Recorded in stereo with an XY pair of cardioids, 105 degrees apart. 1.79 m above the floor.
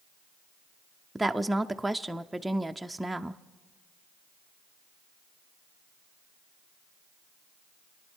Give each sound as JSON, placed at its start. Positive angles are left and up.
{"t": 1.1, "sound": "a woman speaking", "azimuth_deg": -10, "distance_m": 0.6}